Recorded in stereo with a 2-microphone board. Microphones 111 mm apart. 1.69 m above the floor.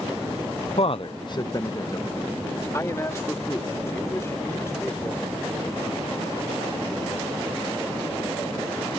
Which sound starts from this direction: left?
A man speaking, at 0.8 s.